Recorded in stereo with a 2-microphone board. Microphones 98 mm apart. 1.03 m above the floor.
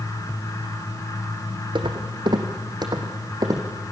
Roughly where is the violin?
I don't hear a violin.